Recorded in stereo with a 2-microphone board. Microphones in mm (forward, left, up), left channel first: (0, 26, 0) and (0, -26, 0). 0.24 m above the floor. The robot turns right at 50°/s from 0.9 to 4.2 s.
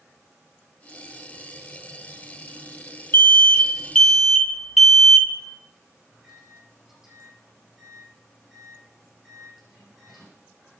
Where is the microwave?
5° right (ahead or behind), 9.5 m.